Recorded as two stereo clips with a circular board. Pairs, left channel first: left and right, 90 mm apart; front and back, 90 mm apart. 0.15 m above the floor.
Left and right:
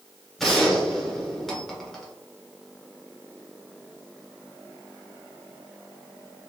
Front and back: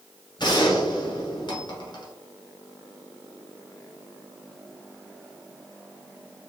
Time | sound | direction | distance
0.4 | a gunshot | straight ahead | 1.2 m